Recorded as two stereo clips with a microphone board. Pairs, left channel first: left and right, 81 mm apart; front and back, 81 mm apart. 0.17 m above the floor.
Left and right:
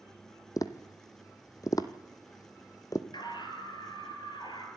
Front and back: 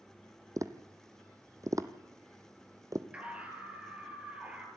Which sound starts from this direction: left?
A scream, at 3.1 s.